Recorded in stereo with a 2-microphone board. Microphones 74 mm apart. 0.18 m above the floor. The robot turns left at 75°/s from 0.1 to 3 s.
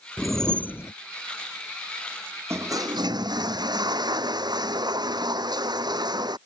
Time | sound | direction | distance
0.2 | a whoosh | 175° right | ?
2.5 | a toilet flushing | 35° right | ?